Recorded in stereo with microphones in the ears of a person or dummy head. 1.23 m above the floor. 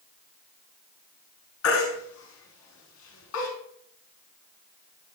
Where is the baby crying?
80° left, 5.5 m.